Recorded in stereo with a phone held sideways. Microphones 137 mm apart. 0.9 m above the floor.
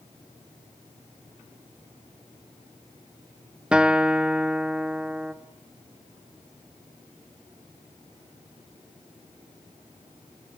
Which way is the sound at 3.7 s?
5° right (ahead or behind).